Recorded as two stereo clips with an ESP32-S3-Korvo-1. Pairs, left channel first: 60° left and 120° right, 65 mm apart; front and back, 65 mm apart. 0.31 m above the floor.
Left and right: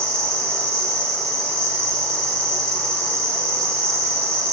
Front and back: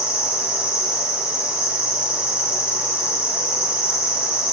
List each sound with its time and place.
0.0 s an insect: 135° left, 1.1 m